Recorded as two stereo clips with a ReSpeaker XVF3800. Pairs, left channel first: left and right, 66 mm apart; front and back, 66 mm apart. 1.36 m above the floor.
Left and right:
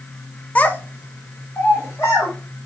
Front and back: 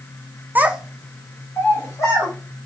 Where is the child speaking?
145° left, 0.6 m; by 2.3 s 35° left, 1.6 m.